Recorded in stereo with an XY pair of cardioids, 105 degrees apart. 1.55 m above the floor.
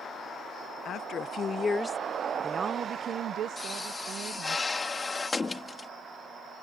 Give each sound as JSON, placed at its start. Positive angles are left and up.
{"t": 0.8, "sound": "a woman speaking", "azimuth_deg": 60}
{"t": 3.6, "sound": "a pop", "azimuth_deg": 25}